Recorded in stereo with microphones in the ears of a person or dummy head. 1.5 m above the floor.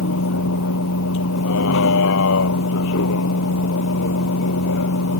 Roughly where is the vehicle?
Left.